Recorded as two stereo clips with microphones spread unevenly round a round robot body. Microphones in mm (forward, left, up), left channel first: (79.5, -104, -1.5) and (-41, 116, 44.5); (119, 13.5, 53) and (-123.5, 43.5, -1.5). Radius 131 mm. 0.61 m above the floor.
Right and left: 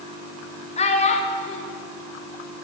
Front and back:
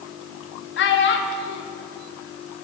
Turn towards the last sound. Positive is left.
turn(degrees=-40)